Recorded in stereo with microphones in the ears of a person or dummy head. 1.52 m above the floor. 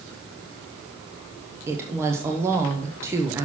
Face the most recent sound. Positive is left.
turn(degrees=-15)  # may be behind; listen again after turning